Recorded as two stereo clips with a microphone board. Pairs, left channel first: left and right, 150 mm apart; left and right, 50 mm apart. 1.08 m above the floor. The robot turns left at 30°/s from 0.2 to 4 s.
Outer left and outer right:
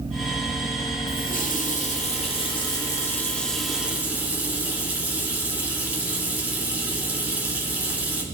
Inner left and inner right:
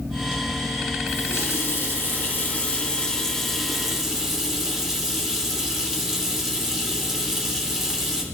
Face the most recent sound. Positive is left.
turn(degrees=-10)